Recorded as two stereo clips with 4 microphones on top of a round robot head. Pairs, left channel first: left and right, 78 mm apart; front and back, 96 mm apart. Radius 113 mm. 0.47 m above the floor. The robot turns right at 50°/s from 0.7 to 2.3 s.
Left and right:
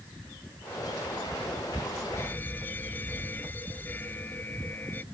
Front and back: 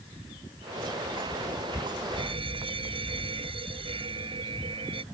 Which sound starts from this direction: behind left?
An alarm, at 2.2 s.